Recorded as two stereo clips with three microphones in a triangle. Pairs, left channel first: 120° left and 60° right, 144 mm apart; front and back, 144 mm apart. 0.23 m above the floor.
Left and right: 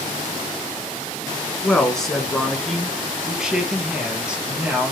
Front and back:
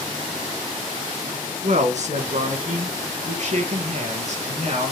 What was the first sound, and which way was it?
A man speaking, 160° right.